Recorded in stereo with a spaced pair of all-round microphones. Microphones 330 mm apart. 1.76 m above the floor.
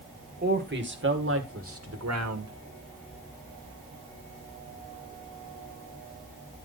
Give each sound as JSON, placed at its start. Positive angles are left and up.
{"t": 0.4, "sound": "a man speaking", "side_deg": -30, "distance_m": 2.5}